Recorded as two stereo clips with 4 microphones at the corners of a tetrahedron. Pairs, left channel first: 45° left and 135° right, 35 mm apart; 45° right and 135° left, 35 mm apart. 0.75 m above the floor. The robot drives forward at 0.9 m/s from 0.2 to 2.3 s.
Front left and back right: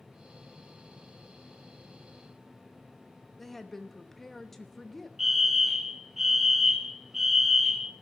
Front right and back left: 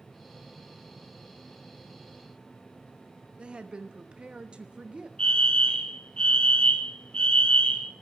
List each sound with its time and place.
3.4 s a woman speaking: 120° left, 1.0 m
5.2 s a fire alarm: 65° right, 1.5 m